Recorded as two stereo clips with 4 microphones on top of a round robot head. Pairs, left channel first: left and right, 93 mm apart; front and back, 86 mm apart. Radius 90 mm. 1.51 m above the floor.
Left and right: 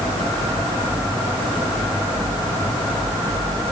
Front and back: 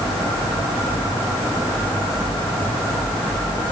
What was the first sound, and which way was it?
Only background noise.